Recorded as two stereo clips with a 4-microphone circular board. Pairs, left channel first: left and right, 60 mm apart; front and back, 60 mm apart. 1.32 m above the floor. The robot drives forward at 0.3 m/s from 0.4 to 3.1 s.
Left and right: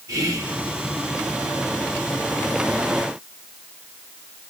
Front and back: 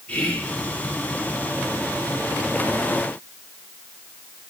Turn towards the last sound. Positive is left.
turn(degrees=-115)